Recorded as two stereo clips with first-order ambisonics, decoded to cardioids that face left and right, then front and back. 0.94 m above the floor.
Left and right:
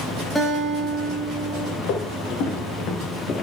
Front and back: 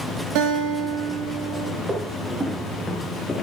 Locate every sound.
0.3 s a guitar: 170° left, 1.9 m
1.8 s footsteps: 110° left, 1.6 m; by 3.4 s 60° left, 1.0 m